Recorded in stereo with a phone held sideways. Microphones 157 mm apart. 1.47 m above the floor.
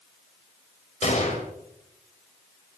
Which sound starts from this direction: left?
A gunshot, at 1.0 s.